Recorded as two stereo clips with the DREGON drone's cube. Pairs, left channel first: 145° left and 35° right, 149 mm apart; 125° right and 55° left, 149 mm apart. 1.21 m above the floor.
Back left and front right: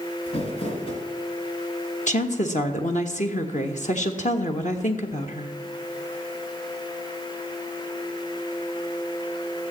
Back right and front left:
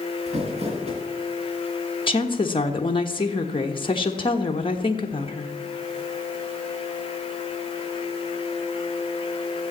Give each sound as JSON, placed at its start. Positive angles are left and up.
{"t": 0.3, "sound": "crumpling", "azimuth_deg": 100, "distance_m": 3.0}
{"t": 2.1, "sound": "a woman speaking", "azimuth_deg": 180, "distance_m": 1.3}